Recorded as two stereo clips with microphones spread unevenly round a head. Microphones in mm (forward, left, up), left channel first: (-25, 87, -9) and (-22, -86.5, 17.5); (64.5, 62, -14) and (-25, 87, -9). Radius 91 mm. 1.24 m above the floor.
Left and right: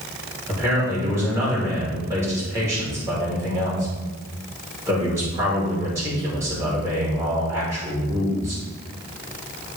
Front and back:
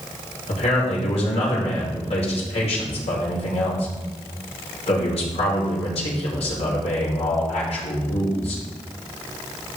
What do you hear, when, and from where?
0.5 s a man speaking: 10° right, 5 m